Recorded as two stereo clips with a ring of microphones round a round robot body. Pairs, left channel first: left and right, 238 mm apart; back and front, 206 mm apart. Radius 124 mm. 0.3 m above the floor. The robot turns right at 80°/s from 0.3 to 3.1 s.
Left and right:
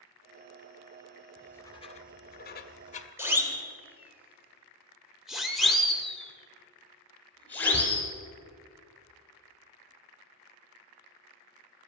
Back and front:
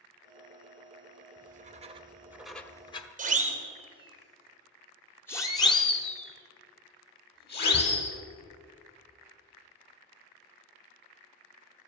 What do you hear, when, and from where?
1.4 s writing: straight ahead, 1.2 m; by 3.1 s 140° left, 1.2 m
3.2 s a siren: 15° right, 2.5 m; by 8.1 s 170° left, 3.5 m